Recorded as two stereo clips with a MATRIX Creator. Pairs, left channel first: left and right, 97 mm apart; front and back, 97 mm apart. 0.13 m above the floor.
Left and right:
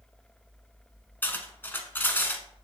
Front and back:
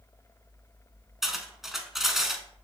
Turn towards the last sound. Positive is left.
turn(degrees=100)